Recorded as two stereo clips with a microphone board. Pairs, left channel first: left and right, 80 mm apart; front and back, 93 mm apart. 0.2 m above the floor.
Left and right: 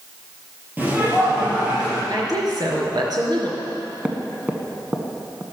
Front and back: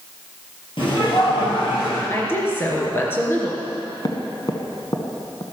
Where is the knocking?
20° right, 1.5 m.